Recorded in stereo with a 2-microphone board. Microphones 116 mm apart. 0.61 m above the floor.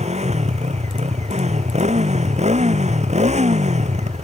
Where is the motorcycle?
80° right; by 4.2 s 90° right.